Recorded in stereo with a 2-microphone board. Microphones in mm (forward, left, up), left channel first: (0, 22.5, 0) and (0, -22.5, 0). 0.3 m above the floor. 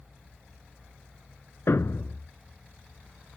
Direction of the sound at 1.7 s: 65° left (ahead or behind).